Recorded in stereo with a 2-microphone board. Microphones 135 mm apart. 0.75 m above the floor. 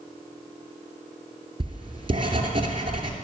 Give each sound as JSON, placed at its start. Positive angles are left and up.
{"t": 1.6, "sound": "writing", "side_deg": -40, "distance_m": 2.5}